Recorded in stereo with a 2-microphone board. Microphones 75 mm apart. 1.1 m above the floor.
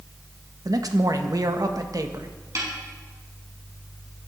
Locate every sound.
0.7 s a man speaking: 55° right (ahead or behind), 1.6 m
2.5 s a snare drum: 45° right (ahead or behind), 7 m